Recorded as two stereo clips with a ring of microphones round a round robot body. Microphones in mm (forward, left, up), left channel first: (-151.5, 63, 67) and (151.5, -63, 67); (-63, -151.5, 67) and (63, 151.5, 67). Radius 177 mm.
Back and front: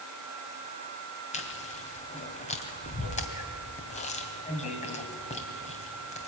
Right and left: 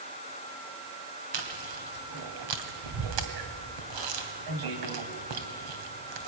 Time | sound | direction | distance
1.3 | chewing | 85° left | 2.5 m